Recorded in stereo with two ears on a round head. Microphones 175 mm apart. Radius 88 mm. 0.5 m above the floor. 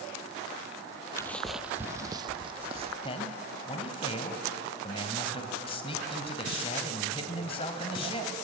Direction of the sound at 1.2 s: 15° left (ahead or behind).